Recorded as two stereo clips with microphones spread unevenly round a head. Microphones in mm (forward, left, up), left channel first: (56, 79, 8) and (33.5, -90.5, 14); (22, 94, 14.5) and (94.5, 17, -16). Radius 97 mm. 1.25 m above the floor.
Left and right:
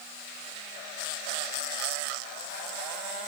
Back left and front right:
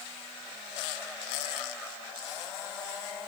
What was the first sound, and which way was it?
Only background noise.